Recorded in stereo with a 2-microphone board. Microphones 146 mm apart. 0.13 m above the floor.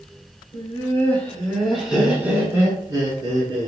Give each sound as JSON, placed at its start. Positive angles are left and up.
{"t": 0.5, "sound": "laughter", "side_deg": 25, "distance_m": 1.5}